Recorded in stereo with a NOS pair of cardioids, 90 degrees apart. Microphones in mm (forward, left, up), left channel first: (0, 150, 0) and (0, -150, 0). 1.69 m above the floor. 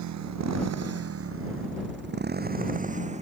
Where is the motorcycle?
65° right; by 3.2 s 20° right.